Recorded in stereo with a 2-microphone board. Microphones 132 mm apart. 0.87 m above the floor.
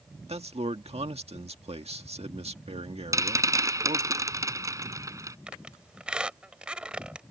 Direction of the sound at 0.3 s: 50° right (ahead or behind).